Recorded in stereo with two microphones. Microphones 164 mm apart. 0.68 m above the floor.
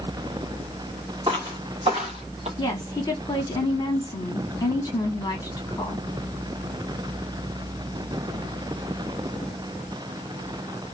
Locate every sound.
1.3 s footsteps: 30° right (ahead or behind), 1.8 m; by 2.5 s 45° right (ahead or behind), 1.0 m
2.6 s a woman speaking: 25° left (ahead or behind), 1.1 m